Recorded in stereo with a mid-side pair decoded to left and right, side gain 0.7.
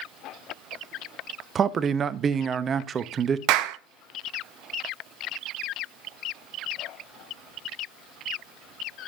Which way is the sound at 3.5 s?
65° right.